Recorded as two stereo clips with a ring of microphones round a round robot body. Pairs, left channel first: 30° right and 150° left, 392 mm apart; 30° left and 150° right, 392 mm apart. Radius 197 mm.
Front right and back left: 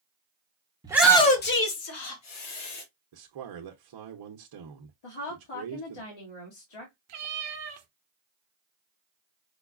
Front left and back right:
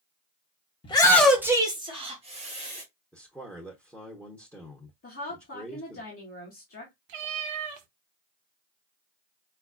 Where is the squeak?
I don't hear a squeak.